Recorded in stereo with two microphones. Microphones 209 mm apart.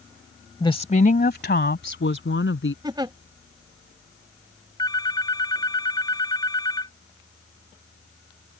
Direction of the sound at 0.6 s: 20° left (ahead or behind).